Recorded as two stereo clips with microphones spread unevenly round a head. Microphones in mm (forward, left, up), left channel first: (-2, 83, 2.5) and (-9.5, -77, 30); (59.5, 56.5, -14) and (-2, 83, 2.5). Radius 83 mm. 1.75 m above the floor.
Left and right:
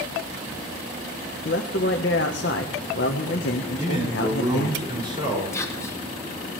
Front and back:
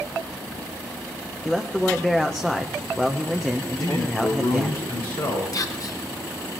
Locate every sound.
1.4 s a man speaking: 60° left, 1.0 m
3.8 s a man speaking: 25° right, 5.5 m
5.5 s whispering: 10° left, 1.5 m